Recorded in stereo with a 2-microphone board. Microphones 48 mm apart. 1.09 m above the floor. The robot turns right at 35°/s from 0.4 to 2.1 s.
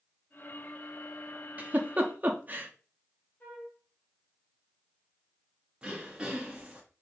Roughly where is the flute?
Left.